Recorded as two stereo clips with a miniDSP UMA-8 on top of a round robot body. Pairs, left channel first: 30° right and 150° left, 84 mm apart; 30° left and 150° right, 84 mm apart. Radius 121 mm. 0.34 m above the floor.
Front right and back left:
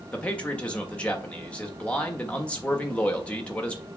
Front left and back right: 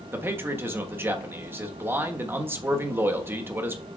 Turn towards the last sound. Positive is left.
turn(degrees=-100)